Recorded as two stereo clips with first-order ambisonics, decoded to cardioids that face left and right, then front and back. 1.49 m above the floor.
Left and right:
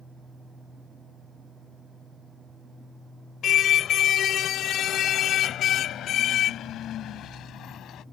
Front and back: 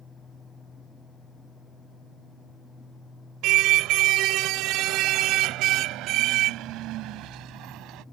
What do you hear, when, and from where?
3.4 s a car horn: 145° left; by 8.0 s 140° left